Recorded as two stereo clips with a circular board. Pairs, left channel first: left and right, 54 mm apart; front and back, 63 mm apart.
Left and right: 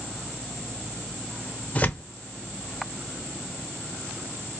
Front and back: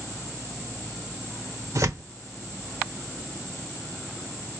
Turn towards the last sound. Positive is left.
turn(degrees=150)